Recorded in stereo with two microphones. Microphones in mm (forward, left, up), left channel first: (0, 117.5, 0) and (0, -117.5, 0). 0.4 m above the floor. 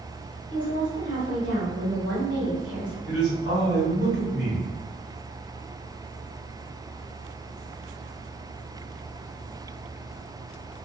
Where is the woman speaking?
55° right (ahead or behind), 1.8 m.